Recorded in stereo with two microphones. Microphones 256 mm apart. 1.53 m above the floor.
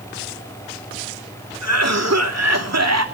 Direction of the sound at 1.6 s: 80° right.